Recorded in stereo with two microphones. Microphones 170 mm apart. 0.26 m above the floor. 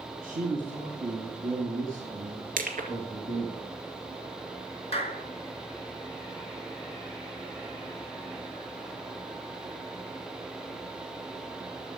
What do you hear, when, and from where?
0.2 s a man speaking: 55° right (ahead or behind), 2.5 m
2.6 s crushing: 55° right (ahead or behind), 2.5 m
4.9 s a clap: 35° left (ahead or behind), 3 m